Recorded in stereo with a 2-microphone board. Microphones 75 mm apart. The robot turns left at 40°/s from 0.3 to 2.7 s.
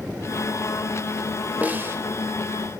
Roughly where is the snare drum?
Right.